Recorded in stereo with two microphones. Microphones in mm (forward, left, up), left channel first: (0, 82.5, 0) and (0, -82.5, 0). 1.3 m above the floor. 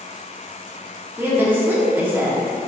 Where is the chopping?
No chopping in this recording.